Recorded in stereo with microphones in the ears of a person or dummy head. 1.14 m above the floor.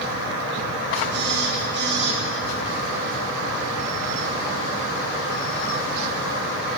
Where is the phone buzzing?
55° right (ahead or behind), 1.5 m.